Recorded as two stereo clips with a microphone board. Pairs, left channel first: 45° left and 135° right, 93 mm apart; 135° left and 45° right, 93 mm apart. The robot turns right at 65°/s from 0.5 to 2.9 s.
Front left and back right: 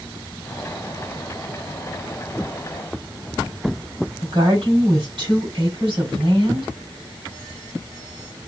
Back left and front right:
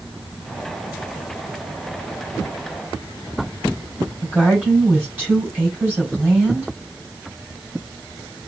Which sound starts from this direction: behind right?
A woman speaking, at 4.2 s.